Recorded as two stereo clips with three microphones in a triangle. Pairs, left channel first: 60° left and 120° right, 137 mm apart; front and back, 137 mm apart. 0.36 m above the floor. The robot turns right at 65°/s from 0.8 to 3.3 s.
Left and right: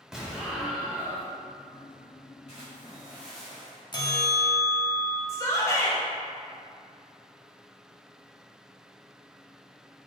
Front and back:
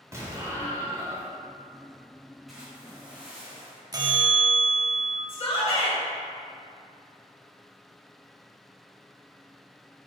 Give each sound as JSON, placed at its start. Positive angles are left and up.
{"t": 0.1, "sound": "an explosion", "azimuth_deg": 165, "distance_m": 0.9}
{"t": 2.5, "sound": "a splash", "azimuth_deg": 90, "distance_m": 1.7}
{"t": 3.9, "sound": "a bell", "azimuth_deg": 115, "distance_m": 0.5}
{"t": 5.3, "sound": "a shout", "azimuth_deg": 5, "distance_m": 1.1}